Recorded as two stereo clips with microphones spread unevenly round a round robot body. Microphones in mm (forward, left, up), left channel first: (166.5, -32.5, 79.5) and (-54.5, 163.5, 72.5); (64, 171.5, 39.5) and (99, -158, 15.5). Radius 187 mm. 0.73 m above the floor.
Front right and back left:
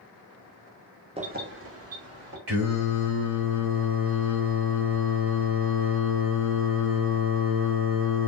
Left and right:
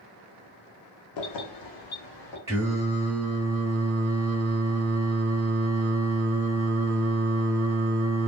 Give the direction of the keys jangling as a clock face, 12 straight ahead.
10 o'clock.